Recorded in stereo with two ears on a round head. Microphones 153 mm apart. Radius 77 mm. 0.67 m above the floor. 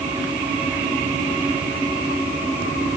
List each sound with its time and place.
Only background noise.